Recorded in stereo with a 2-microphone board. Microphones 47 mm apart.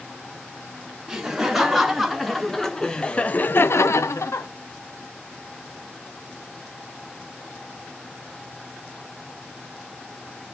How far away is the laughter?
About 2.5 m.